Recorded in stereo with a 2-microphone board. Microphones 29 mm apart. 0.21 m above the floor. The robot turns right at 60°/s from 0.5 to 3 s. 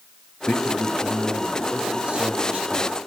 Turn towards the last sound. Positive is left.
turn(degrees=-75)